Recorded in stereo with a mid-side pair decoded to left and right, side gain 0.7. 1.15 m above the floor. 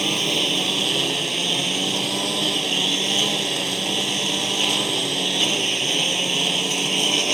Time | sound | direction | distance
0.0 | a lawn mower | 10° right | ?